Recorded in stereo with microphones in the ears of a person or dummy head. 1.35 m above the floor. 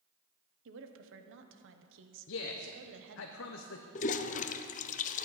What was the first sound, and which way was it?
A woman speaking, 65° right (ahead or behind).